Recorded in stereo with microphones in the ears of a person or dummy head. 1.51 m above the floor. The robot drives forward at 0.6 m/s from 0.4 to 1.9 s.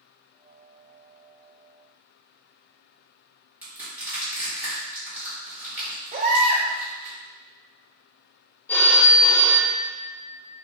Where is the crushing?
10° right (ahead or behind), 1.9 m.